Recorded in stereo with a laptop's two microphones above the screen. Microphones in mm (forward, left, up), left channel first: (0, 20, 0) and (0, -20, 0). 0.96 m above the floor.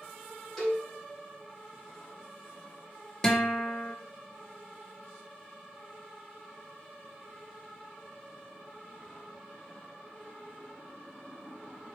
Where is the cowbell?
10° left (ahead or behind), 3.5 m.